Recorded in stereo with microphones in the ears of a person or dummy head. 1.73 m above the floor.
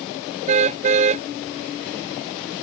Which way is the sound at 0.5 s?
35° right (ahead or behind).